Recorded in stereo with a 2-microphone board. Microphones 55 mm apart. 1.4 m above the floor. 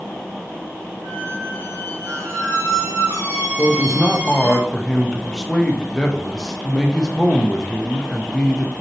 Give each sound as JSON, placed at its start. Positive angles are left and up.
{"t": 1.0, "sound": "a squeak", "side_deg": -70, "distance_m": 1.9}
{"t": 3.6, "sound": "a man speaking", "side_deg": 10, "distance_m": 0.8}